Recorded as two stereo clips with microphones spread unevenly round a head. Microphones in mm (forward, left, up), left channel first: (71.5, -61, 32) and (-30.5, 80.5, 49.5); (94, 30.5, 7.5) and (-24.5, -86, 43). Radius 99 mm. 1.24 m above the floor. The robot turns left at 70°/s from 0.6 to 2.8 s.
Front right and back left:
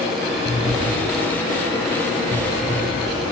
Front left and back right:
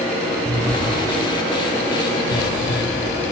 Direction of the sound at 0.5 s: Straight behind.